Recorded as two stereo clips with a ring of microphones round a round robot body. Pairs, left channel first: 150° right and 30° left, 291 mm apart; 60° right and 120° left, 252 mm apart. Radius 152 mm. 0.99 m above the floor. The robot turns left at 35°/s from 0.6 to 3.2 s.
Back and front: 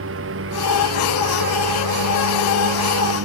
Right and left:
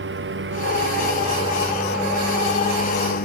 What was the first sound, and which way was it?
A lawn mower, 80° left.